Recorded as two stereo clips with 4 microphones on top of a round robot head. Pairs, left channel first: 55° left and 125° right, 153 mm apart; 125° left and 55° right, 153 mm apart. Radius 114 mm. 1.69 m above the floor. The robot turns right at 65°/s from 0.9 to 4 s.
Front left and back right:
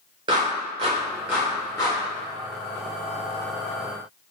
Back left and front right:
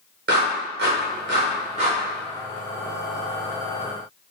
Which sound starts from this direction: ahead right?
A clap, at 0.3 s.